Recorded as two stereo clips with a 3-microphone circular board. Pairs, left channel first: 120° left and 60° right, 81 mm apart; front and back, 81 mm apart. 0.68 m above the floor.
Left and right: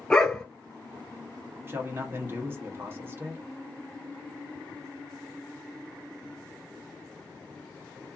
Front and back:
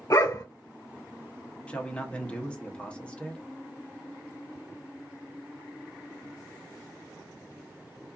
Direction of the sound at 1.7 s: 55° right.